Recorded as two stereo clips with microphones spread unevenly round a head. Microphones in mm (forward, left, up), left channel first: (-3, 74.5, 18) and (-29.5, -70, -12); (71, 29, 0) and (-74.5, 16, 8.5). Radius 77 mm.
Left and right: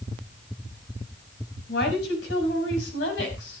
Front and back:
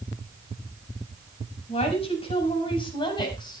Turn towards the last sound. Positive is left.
turn(degrees=70)